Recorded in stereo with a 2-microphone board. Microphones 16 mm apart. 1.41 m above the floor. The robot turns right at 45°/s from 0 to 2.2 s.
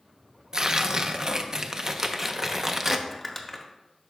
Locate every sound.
0.5 s tearing paper: 115° right, 0.5 m; by 3.0 s 40° right, 0.5 m
3.1 s crumpling: 5° left (ahead or behind), 0.8 m